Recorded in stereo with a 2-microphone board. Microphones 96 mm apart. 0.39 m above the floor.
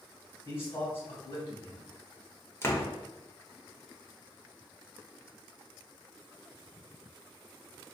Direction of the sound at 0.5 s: 30° left (ahead or behind).